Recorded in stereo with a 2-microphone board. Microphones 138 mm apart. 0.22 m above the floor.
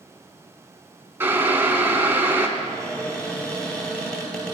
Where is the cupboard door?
5° left (ahead or behind), 1.9 m.